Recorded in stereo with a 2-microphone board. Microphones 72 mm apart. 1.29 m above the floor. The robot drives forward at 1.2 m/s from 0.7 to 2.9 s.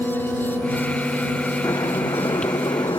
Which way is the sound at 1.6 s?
85° left.